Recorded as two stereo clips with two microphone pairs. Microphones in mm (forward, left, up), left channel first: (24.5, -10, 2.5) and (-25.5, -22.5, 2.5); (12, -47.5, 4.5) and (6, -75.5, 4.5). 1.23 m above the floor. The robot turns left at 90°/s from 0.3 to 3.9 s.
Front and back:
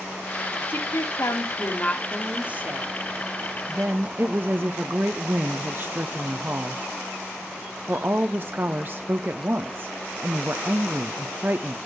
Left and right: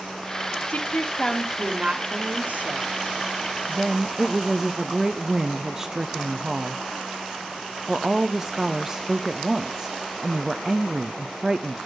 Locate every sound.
0.7 s a woman speaking: 60° left, 1.8 m; by 2.9 s 140° right, 1.8 m
3.7 s a woman speaking: 140° right, 0.6 m; by 11.8 s 160° right, 0.6 m